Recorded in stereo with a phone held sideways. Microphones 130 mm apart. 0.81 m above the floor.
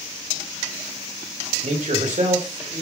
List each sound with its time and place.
1.6 s a man speaking: 80° right, 2.5 m